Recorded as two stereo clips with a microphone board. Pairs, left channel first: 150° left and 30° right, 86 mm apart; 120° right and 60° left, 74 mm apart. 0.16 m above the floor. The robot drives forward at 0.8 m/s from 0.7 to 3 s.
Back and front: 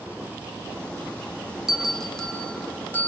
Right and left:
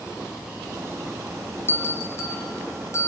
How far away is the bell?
About 1.7 m.